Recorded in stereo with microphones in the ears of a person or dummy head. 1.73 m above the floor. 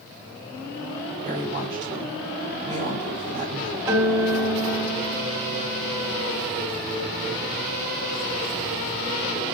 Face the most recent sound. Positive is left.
turn(degrees=-20)  # may be behind; listen again after turning